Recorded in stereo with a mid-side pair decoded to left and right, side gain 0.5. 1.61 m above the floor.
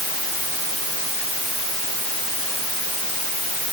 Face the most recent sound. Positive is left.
No sound to turn to.